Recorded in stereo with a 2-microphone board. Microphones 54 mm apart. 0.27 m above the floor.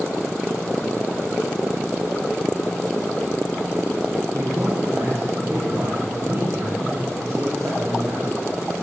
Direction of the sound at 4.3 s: 70° right (ahead or behind).